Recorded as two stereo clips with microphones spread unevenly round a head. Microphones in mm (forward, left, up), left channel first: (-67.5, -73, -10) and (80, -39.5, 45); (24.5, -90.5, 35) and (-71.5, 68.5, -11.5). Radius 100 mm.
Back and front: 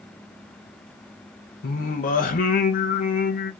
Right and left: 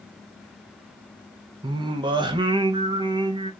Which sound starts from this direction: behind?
Singing, at 1.6 s.